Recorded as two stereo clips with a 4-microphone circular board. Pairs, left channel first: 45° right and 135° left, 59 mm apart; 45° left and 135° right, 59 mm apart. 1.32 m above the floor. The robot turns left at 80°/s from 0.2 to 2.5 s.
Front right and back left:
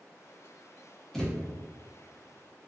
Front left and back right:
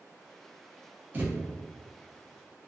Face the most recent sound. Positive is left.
turn(degrees=140)